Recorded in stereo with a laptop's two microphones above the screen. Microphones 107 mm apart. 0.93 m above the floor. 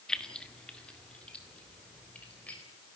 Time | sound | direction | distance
0.1 | keys jangling | 5° left (ahead or behind) | 1.0 m